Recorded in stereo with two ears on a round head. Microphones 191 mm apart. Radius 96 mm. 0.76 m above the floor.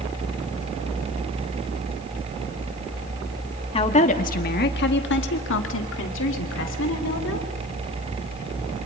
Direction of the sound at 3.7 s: 25° left (ahead or behind).